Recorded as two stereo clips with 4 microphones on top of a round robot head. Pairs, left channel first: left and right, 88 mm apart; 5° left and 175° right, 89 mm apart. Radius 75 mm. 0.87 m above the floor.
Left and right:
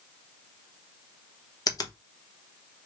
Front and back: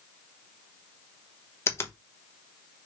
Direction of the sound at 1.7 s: 60° left.